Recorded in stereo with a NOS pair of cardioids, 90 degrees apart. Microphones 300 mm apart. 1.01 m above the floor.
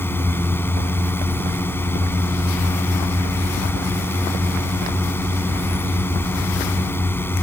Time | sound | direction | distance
0.0 | a drone | 5° left | ?